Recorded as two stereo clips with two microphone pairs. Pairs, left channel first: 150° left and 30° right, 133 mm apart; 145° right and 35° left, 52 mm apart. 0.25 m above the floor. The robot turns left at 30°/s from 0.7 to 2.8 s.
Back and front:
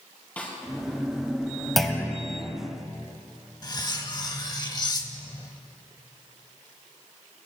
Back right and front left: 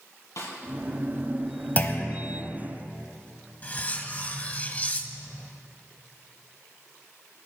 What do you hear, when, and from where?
0.4 s a snare drum: 130° right, 2.5 m
1.8 s a clunk: 125° right, 1.0 m; by 2.2 s 135° right, 1.0 m
3.6 s cutlery clinking: straight behind, 0.8 m